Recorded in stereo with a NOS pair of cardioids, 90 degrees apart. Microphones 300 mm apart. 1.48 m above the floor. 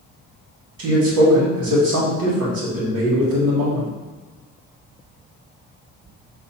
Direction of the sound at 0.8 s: 65° right.